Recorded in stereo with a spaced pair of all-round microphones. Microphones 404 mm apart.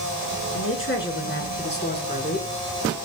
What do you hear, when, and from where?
0.5 s a woman speaking: 30° left (ahead or behind), 5 m; by 3.0 s 15° left (ahead or behind), 4.5 m